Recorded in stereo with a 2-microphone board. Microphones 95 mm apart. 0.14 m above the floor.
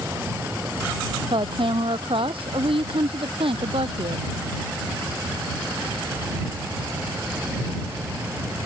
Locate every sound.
1.3 s a woman speaking: 65° right (ahead or behind); by 4.3 s 75° right (ahead or behind)